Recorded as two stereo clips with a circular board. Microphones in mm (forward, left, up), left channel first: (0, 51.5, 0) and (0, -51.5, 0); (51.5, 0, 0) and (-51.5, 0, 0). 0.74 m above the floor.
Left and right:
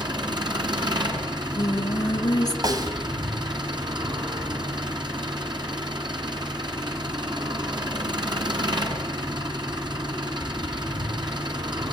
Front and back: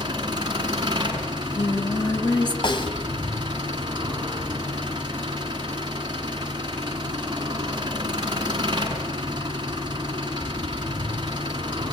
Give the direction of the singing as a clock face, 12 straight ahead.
11 o'clock.